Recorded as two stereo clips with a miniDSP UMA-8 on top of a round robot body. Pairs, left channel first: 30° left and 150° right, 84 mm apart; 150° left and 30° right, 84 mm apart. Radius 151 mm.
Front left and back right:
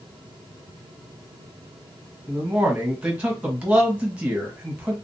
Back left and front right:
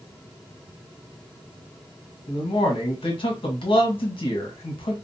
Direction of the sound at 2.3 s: 135° left.